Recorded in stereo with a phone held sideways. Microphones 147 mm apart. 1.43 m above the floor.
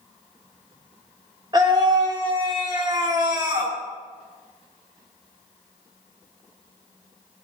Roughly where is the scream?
Right.